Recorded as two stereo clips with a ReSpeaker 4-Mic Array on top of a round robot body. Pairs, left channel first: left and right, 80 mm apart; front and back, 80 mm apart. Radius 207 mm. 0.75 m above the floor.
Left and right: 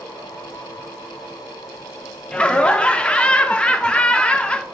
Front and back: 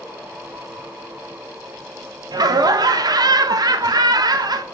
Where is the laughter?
165° left, 0.5 m.